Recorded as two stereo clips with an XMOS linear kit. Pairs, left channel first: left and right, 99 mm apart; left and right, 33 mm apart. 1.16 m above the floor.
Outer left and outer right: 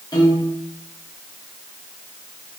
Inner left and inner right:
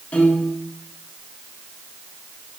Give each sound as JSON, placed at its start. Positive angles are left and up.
{"t": 0.1, "sound": "a piano", "side_deg": 45, "distance_m": 2.5}